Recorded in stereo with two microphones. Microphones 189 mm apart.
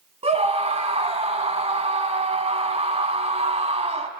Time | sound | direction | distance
0.2 | a scream | 30° right (ahead or behind) | 1.3 m